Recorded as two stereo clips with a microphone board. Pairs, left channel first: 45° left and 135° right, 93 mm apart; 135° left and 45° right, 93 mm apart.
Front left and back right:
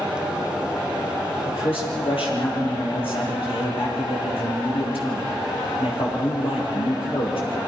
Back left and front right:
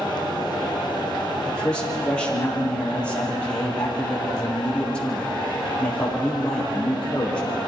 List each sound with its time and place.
1.5 s a man speaking: 55° left, 7 m